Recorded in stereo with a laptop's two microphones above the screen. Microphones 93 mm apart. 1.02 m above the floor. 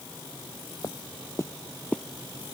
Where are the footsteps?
45° left (ahead or behind); by 2.0 s 10° left (ahead or behind).